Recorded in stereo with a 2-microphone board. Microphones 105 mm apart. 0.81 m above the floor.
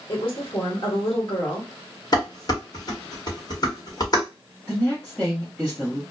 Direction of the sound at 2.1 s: 40° left (ahead or behind).